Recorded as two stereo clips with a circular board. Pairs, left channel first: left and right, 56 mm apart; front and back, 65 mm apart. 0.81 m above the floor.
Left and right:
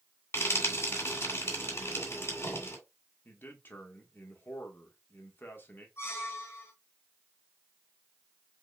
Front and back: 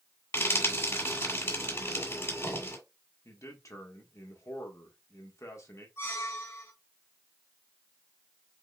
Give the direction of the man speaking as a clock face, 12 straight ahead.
11 o'clock.